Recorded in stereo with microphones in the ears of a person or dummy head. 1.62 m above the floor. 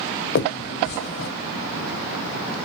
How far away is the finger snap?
About 1.0 m.